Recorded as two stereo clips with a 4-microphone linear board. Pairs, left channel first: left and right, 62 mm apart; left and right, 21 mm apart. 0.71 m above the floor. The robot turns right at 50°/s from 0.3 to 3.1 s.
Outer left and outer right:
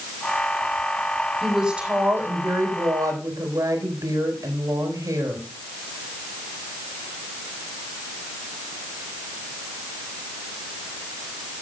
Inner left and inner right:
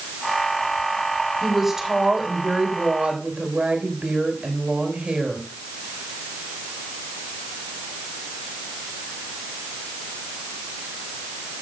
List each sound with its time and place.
1.4 s a woman speaking: straight behind, 3.5 m; by 5.4 s 95° right, 3.5 m